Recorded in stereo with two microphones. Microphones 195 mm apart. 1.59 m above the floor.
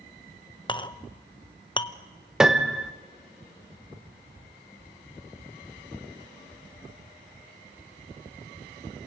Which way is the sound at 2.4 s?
5° right (ahead or behind).